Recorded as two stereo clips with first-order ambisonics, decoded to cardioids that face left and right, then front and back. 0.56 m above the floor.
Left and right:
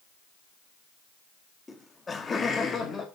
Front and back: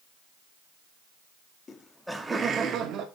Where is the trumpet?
I don't hear a trumpet.